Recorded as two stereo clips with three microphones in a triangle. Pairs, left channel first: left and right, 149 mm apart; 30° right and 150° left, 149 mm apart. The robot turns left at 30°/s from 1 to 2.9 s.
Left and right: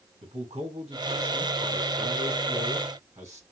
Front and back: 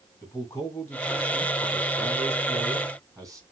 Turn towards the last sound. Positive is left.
turn(degrees=-150)